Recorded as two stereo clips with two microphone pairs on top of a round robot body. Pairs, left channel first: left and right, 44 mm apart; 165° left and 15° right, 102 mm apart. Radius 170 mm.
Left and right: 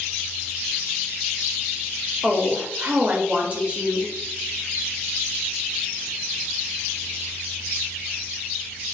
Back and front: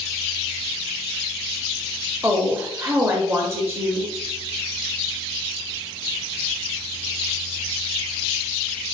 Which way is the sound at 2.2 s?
55° right.